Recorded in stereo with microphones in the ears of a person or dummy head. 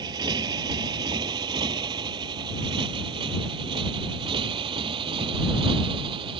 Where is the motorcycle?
15° right (ahead or behind); by 6.4 s 20° right (ahead or behind).